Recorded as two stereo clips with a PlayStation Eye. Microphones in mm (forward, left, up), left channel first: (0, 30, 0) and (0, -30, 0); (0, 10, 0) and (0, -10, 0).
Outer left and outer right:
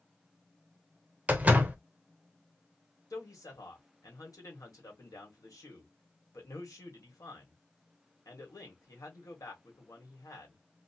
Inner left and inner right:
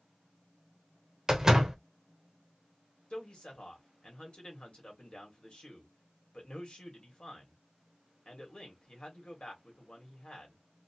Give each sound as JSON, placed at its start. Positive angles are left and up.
{"t": 1.3, "sound": "a door slam", "side_deg": -25, "distance_m": 0.6}
{"t": 3.1, "sound": "a man speaking", "side_deg": 70, "distance_m": 1.4}